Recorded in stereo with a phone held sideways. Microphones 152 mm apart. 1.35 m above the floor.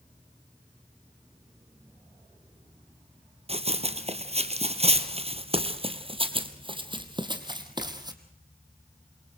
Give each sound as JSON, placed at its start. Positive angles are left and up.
{"t": 3.5, "sound": "running footsteps", "side_deg": -40, "distance_m": 1.8}